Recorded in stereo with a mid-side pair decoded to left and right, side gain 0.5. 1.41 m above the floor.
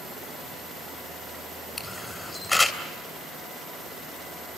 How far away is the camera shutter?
About 3 m.